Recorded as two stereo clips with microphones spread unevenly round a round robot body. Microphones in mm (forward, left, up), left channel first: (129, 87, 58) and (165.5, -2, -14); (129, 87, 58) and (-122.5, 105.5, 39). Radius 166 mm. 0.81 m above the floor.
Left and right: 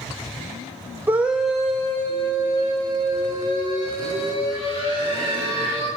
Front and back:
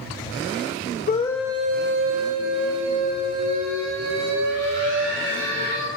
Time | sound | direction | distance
1.1 | a scream | 55° right | 0.6 m